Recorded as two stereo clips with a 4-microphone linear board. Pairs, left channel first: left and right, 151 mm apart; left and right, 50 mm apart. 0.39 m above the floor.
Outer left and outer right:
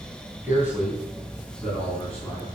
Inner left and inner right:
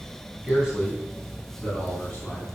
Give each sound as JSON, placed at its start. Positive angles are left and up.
{"t": 0.4, "sound": "a man speaking", "side_deg": -15, "distance_m": 3.5}